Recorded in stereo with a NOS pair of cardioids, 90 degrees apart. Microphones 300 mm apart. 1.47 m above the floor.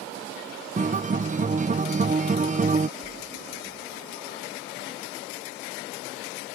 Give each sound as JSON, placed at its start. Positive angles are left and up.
{"t": 0.8, "sound": "a guitar", "azimuth_deg": -25}
{"t": 3.0, "sound": "a splash", "azimuth_deg": -20}